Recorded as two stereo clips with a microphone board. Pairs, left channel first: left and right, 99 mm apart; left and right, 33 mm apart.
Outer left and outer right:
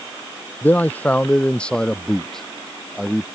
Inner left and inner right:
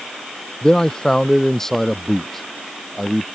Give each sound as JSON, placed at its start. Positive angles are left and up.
{"t": 0.6, "sound": "a man speaking", "side_deg": 20}